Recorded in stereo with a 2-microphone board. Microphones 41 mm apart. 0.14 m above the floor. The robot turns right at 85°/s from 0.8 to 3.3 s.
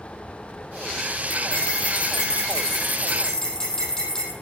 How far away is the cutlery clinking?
About 3.5 m.